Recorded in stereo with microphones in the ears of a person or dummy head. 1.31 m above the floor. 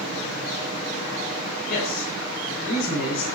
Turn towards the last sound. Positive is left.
turn(degrees=50)  # may be behind; listen again after turning